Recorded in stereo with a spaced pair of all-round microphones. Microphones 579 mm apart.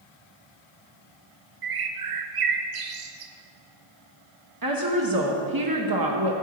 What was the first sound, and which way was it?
A bird, 60° right (ahead or behind).